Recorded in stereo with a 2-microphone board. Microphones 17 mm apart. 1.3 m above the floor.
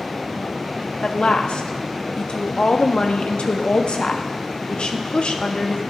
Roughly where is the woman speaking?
Left.